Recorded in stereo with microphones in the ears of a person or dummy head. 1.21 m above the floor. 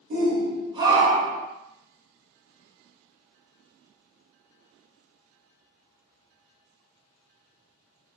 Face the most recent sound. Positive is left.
turn(degrees=5)  # may be behind; listen again after turning